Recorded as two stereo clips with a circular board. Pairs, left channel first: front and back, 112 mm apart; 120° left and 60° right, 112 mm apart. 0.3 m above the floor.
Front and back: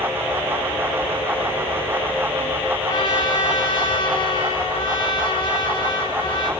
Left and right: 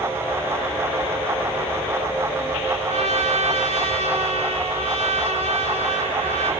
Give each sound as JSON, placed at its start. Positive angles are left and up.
{"t": 2.9, "sound": "a trumpet", "azimuth_deg": -45, "distance_m": 2.5}